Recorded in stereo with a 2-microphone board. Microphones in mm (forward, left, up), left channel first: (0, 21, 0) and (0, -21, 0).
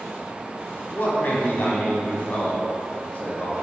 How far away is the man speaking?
About 2 m.